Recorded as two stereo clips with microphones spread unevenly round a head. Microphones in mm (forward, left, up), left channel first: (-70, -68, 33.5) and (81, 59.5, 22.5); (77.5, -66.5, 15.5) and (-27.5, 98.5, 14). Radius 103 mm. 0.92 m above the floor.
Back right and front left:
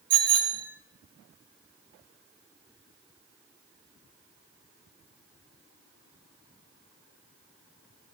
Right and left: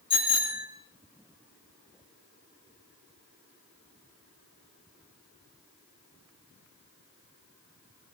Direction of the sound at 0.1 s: 5° left.